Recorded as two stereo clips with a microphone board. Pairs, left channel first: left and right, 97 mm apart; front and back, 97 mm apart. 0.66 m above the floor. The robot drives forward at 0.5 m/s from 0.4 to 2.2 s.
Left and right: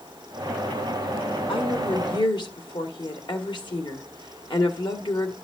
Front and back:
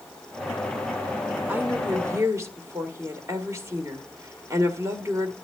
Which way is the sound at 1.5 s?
110° left.